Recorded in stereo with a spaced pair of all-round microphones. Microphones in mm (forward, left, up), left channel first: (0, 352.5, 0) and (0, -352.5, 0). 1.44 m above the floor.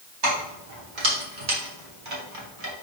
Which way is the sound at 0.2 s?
75° right (ahead or behind).